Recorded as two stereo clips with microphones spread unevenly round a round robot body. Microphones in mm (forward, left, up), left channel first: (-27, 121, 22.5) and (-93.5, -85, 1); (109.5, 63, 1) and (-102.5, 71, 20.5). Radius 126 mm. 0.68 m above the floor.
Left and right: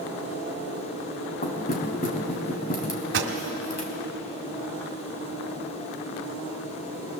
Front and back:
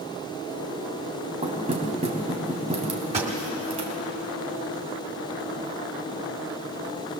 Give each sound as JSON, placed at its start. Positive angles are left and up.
{"t": 1.4, "sound": "knocking", "azimuth_deg": 120, "distance_m": 3.5}
{"t": 3.1, "sound": "a pop", "azimuth_deg": -115, "distance_m": 2.0}